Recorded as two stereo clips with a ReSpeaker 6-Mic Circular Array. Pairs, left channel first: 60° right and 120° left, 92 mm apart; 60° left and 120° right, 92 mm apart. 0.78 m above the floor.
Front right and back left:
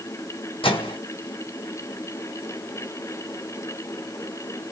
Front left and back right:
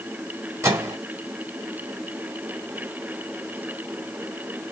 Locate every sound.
0.6 s a microwave: 60° right, 1.3 m